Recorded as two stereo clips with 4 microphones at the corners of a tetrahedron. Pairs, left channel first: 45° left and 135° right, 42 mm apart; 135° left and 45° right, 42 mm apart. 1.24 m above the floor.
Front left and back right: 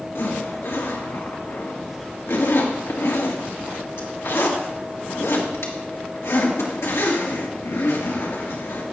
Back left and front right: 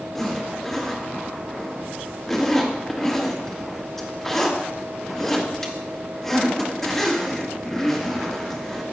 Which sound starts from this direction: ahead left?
A zipper, at 0.1 s.